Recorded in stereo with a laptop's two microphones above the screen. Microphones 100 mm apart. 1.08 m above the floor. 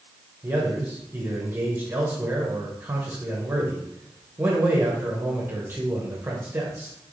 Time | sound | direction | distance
0.4 | a man speaking | 20° right (ahead or behind) | 0.8 m